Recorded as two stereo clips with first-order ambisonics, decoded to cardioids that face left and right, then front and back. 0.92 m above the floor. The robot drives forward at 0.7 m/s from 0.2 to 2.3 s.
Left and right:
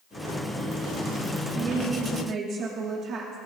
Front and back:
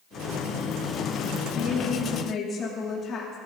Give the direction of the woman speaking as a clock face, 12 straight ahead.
1 o'clock.